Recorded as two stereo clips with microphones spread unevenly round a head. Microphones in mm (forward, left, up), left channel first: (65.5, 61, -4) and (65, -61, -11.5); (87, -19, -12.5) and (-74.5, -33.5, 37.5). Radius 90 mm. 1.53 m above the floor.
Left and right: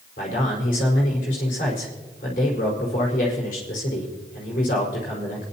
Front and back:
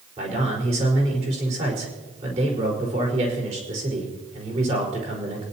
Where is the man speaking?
130° left, 5 m.